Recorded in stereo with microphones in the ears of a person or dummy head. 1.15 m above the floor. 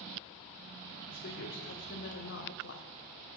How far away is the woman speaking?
About 3.5 m.